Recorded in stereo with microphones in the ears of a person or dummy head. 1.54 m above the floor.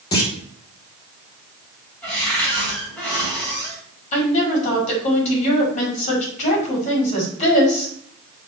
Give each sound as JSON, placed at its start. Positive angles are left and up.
{"t": 0.1, "sound": "a clunk", "side_deg": 25, "distance_m": 1.5}
{"t": 2.0, "sound": "a cupboard door", "side_deg": 5, "distance_m": 4.0}
{"t": 4.1, "sound": "a woman speaking", "side_deg": 40, "distance_m": 4.0}